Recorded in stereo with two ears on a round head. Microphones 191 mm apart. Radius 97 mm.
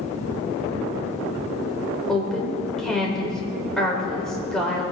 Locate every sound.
2.1 s a woman speaking: 5° left (ahead or behind), 4 m